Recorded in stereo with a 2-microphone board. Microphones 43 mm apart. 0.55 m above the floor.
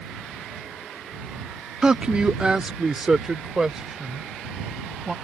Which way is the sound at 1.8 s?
20° right (ahead or behind).